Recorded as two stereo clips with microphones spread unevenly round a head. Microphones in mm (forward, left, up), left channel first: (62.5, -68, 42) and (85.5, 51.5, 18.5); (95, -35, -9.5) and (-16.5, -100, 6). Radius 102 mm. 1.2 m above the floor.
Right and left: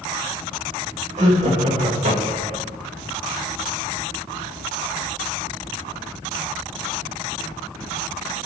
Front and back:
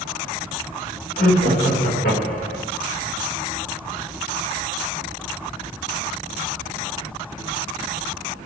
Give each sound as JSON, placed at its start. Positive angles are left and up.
{"t": 1.2, "sound": "laughter", "azimuth_deg": 65, "distance_m": 6.0}